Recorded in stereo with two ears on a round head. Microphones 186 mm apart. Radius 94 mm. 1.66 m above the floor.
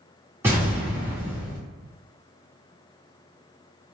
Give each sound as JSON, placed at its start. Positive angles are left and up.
{"t": 0.4, "sound": "an explosion", "side_deg": -10, "distance_m": 0.9}